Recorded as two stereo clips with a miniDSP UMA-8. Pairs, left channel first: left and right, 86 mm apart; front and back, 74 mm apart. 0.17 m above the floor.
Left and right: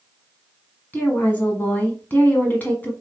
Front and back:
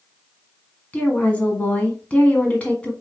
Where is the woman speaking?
45° left, 1.3 m.